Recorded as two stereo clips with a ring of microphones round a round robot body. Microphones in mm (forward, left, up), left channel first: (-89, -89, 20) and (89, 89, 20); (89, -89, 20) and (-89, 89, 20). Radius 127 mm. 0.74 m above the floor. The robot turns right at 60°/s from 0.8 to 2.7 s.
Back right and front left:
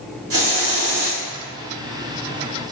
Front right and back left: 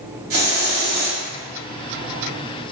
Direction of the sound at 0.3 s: 80° left.